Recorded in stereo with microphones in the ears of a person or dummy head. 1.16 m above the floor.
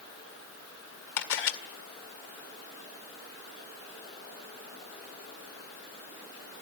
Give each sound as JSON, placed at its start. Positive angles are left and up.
{"t": 1.2, "sound": "a camera shutter", "side_deg": 70, "distance_m": 1.9}